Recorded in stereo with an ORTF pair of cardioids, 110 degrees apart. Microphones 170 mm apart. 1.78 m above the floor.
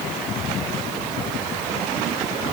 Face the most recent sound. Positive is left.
No sound to turn to.